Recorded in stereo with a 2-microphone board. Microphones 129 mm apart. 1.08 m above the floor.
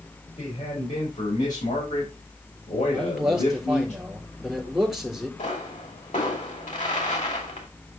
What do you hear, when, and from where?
0.3 s a man speaking: 85° left, 4.5 m; by 3.9 s 65° left (ahead or behind), 4 m
2.9 s a man speaking: centre (ahead or behind), 3.5 m
5.4 s a pop: 70° left (ahead or behind), 3 m